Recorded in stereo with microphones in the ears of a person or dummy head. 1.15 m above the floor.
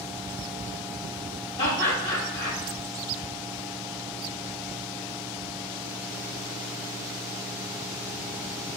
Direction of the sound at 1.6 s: 20° left (ahead or behind).